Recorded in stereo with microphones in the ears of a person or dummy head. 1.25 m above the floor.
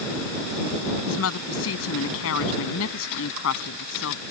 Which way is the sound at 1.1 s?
75° left (ahead or behind).